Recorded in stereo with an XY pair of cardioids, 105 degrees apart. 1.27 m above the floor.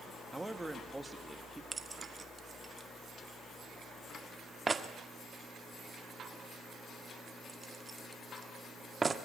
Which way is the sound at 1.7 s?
25° right.